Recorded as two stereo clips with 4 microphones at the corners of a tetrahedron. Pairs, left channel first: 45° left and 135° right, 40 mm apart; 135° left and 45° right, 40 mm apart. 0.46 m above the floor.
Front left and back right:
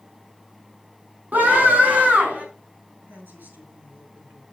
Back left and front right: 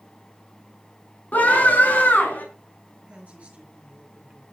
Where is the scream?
175° right, 5 m; by 2.5 s straight behind, 5 m.